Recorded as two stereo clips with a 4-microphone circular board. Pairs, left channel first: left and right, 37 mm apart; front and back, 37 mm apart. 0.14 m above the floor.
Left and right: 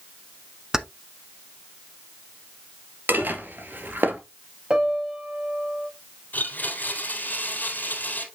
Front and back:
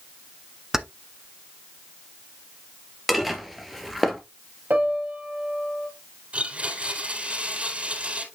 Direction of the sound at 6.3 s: 130° left.